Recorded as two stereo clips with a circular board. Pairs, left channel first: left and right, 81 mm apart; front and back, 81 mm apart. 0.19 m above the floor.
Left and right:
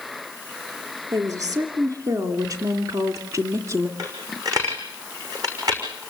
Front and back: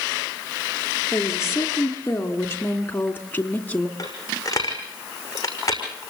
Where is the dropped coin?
50° right, 6 m.